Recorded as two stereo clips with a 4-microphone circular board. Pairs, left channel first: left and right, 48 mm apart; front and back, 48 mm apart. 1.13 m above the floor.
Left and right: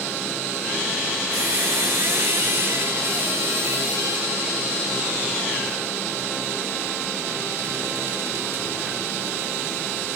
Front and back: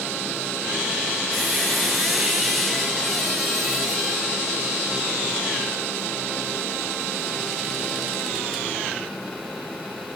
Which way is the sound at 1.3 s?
90° right.